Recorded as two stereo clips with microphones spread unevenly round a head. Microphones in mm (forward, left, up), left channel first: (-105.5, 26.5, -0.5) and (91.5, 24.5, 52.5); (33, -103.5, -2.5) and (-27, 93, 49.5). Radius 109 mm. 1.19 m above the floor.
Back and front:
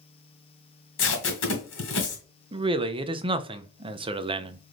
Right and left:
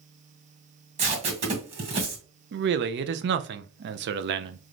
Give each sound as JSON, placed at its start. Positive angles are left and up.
{"t": 1.0, "sound": "tape being pulled", "azimuth_deg": 155, "distance_m": 1.6}
{"t": 2.5, "sound": "a man speaking", "azimuth_deg": 65, "distance_m": 0.5}